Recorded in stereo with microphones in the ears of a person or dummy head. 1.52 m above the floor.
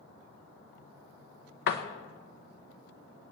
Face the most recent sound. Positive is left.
turn(degrees=60)  # may be behind; listen again after turning